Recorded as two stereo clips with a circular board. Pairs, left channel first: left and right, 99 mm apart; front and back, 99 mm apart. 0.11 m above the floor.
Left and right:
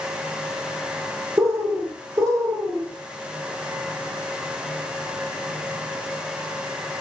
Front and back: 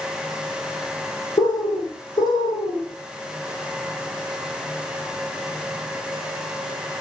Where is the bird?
40° right, 0.9 m.